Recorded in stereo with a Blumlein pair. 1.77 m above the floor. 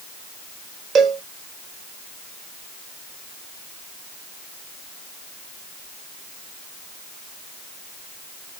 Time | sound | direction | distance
0.9 | a cowbell | 25° right | 0.8 m